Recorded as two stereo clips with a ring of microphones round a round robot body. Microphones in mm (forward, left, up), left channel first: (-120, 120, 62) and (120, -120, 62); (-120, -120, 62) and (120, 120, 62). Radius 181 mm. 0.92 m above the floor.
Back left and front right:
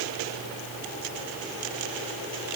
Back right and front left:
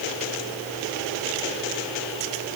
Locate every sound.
Only background noise.